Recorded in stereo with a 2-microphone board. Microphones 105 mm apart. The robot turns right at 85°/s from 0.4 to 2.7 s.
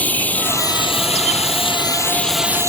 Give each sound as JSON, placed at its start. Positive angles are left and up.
{"t": 0.0, "sound": "running water", "azimuth_deg": 15}